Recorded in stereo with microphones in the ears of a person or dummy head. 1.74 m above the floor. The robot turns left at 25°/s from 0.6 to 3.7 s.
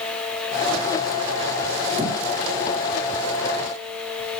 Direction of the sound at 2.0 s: 30° right (ahead or behind).